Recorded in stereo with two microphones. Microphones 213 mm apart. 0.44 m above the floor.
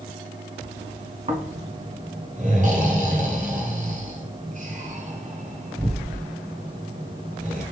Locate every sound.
1.3 s snoring: 35° right (ahead or behind), 0.8 m